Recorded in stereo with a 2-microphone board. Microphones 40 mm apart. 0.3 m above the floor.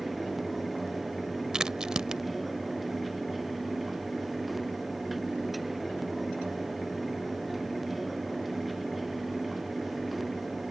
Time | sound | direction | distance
1.5 | a crack | 15° right (ahead or behind) | ?